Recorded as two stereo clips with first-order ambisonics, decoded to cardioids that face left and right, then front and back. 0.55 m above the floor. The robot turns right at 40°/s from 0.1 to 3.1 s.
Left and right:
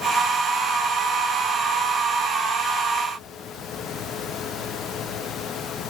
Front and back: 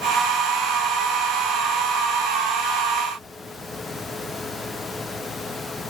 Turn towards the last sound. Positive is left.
No sound to turn to.